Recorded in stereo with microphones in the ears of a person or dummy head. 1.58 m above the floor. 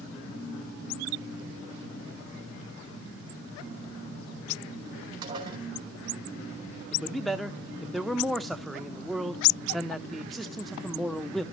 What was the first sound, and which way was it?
Dishes clattering, 20° right (ahead or behind).